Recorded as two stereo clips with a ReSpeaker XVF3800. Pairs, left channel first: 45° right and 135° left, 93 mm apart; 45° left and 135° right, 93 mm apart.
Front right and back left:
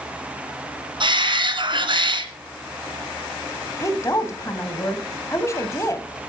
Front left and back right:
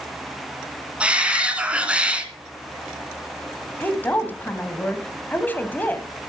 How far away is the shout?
About 2 m.